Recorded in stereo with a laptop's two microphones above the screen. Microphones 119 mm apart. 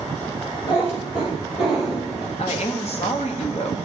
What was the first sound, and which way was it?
A cat meowing, 55° left (ahead or behind).